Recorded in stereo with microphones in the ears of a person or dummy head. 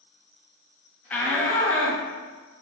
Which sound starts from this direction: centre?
A shout, at 1.1 s.